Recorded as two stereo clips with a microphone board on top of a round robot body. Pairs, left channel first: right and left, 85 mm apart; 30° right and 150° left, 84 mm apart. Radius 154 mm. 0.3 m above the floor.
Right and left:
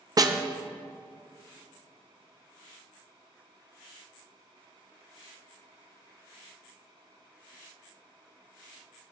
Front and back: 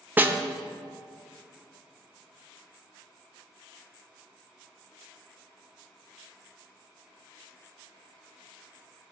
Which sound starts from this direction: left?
A snare drum, at 0.2 s.